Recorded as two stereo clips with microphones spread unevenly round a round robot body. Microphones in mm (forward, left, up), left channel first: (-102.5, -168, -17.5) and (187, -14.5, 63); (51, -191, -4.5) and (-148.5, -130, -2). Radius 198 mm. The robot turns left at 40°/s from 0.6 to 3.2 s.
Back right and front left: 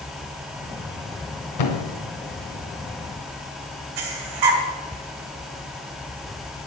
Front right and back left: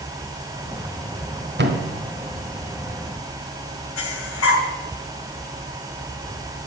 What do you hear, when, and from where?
1.6 s a thud: 160° right, 2.5 m; by 1.9 s 170° right, 2.5 m
4.0 s breathing: 20° left, 2.5 m